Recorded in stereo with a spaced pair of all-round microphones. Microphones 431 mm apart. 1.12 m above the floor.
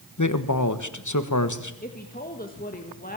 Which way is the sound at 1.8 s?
20° left (ahead or behind).